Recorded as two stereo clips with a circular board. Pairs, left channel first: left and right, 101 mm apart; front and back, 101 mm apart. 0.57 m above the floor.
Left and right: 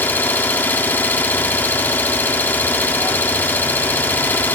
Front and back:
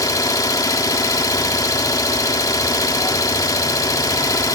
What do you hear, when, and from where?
0.0 s an engine running: 30° left, 1.2 m